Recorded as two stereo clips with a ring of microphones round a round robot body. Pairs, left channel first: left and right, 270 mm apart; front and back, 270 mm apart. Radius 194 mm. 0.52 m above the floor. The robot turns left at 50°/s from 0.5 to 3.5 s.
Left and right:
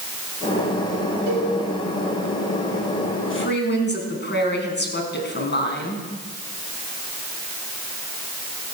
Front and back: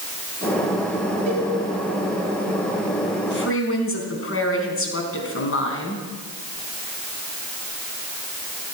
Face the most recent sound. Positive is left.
turn(degrees=40)